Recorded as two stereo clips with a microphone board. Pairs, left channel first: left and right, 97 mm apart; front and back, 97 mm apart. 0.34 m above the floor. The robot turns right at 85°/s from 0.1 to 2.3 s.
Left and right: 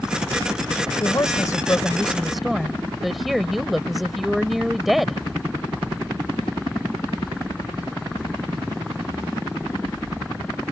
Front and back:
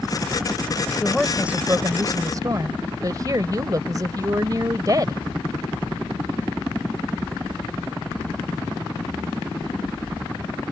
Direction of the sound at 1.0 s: 70° left.